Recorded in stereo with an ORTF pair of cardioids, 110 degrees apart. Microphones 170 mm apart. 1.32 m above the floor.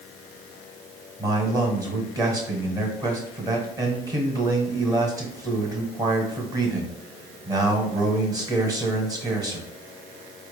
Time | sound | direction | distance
1.2 | a man speaking | 20° right | 1.2 m